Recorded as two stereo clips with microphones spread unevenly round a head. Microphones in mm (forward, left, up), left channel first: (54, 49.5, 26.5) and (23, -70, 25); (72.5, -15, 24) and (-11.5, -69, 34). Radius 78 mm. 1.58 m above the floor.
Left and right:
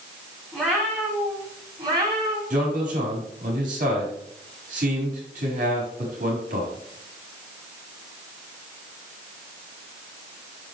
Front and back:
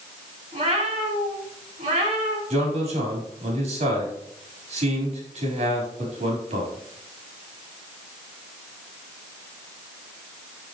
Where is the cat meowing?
165° left, 3 m; by 2.4 s 160° right, 3.5 m.